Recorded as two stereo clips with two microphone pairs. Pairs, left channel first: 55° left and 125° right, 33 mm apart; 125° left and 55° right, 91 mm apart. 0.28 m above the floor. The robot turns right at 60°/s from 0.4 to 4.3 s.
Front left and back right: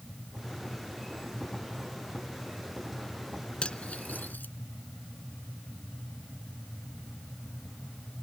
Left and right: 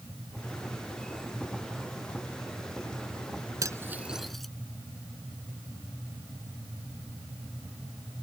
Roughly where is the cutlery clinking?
Ahead.